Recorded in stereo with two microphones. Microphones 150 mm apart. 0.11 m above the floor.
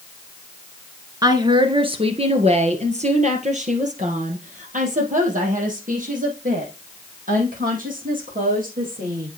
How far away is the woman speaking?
About 1.4 m.